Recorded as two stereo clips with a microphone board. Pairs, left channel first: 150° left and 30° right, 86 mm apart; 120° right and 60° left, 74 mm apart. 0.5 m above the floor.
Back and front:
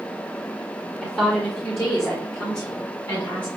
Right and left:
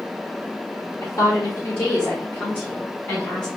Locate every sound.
1.0 s a woman speaking: 140° right, 1.0 m; by 3.5 s 175° left, 1.9 m